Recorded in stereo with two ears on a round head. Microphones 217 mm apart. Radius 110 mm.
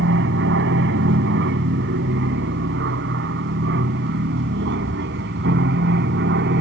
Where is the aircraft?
50° right (ahead or behind); by 6.6 s 45° right (ahead or behind).